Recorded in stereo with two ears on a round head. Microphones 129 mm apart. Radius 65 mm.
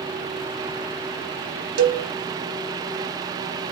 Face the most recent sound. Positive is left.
turn(degrees=-70)  # may be behind; listen again after turning